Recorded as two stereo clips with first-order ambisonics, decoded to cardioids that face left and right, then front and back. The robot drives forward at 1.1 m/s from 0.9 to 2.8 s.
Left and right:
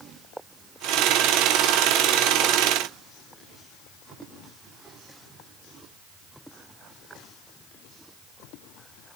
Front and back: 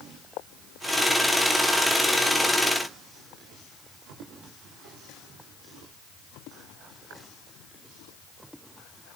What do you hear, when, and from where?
Only background noise.